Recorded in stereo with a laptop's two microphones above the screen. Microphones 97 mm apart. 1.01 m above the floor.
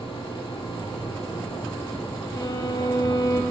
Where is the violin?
40° left (ahead or behind), 0.9 m.